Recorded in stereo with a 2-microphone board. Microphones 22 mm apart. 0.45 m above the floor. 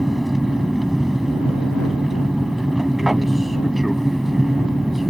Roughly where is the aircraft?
Centre.